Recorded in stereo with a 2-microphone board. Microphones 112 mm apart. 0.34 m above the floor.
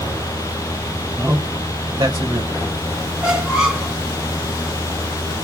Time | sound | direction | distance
1.2 | a man speaking | 20° right (ahead or behind) | 1.6 m
3.2 | a squeak | 5° right (ahead or behind) | 2 m